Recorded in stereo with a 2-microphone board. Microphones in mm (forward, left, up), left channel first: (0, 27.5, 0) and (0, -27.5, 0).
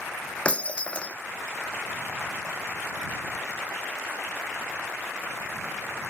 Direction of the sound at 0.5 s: 20° left (ahead or behind).